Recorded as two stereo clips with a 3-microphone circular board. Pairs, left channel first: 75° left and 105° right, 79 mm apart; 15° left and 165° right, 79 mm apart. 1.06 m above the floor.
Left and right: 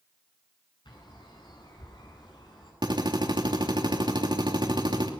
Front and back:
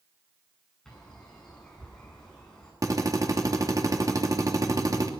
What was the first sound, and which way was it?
A bird, 95° left.